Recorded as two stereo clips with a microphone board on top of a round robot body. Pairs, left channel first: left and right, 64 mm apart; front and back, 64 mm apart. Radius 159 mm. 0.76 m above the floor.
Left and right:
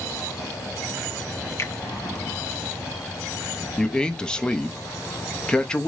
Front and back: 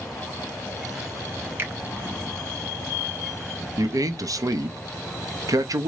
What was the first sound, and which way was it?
A finger snap, 130° left.